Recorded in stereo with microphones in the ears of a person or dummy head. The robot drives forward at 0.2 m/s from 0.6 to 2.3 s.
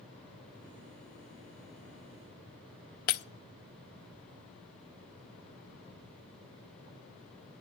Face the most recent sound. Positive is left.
turn(degrees=45)  # may be behind; listen again after turning